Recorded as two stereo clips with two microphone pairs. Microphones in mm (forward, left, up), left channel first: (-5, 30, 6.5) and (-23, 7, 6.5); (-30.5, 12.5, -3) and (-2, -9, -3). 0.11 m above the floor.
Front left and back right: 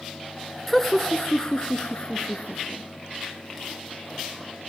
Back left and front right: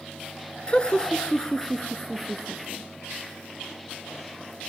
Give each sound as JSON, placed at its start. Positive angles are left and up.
{"t": 0.7, "sound": "laughter", "azimuth_deg": 140, "distance_m": 1.5}